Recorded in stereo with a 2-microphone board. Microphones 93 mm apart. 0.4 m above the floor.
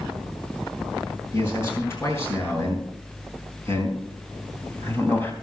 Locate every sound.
1.3 s a man speaking: 30° left (ahead or behind), 7.5 m; by 5.3 s 20° left (ahead or behind), 3.5 m